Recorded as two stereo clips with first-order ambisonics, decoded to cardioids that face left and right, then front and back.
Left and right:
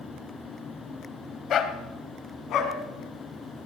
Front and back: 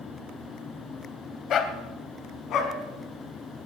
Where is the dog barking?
45° left, 1.2 m.